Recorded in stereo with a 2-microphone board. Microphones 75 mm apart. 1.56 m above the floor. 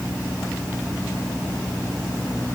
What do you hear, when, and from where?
Only background noise.